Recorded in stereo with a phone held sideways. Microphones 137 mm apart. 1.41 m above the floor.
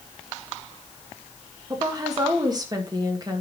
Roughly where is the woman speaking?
Right.